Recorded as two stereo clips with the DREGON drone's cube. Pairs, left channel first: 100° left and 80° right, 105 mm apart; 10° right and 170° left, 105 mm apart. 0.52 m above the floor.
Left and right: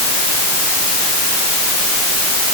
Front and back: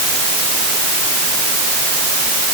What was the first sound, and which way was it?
Only background noise.